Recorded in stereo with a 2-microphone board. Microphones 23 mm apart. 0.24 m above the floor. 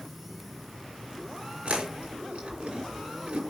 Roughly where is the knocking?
I don't hear knocking.